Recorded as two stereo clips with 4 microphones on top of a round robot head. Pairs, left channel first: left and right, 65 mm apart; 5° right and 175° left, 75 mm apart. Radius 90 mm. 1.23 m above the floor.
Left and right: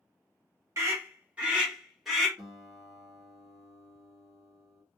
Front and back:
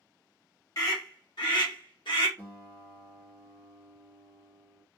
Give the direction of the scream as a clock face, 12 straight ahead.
1 o'clock.